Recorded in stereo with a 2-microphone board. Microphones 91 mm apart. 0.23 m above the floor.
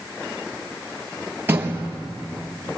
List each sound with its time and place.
1.5 s a door slam: 25° right (ahead or behind), 3.5 m